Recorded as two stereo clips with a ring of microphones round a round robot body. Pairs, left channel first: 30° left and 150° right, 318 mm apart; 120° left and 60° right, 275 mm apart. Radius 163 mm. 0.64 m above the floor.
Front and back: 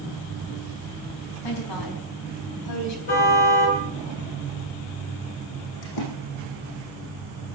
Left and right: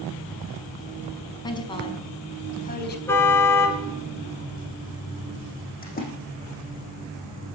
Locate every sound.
1.4 s a woman speaking: 45° left, 5.5 m; by 3.0 s 70° left, 4 m
3.1 s a car horn: 40° left, 4.5 m
5.8 s a splash: 60° left, 6.5 m